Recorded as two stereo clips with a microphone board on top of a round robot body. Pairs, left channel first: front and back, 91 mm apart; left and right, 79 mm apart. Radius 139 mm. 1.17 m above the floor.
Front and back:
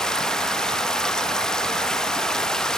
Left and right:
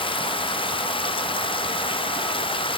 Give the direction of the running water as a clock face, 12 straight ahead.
9 o'clock.